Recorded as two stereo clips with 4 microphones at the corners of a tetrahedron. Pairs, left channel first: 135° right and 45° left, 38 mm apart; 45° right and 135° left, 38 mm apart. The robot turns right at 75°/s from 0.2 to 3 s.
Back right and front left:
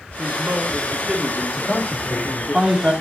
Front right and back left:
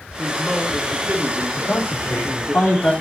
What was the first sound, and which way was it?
A man speaking, 40° left.